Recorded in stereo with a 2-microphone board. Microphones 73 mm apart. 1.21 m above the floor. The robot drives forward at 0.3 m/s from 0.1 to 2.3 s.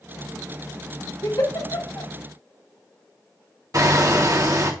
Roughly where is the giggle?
Left.